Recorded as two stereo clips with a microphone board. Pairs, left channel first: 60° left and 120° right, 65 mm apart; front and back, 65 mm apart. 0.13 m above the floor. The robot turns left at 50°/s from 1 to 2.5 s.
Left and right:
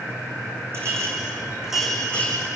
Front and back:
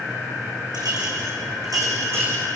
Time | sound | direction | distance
0.7 | a clink | 170° right | 6 m